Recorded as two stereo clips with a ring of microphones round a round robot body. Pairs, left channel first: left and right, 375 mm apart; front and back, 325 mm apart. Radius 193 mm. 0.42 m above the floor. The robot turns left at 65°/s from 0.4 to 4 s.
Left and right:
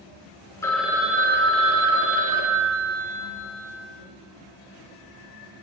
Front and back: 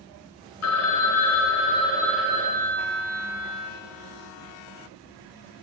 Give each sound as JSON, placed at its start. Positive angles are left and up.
{"t": 0.6, "sound": "a phone ringing", "azimuth_deg": 10, "distance_m": 0.6}